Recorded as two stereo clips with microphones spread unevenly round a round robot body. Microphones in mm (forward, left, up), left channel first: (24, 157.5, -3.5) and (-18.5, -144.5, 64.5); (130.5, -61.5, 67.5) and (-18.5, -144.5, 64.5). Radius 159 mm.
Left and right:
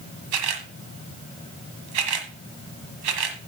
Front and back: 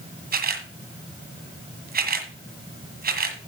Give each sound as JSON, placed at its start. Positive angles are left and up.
{"t": 0.3, "sound": "a camera shutter", "azimuth_deg": -115, "distance_m": 1.7}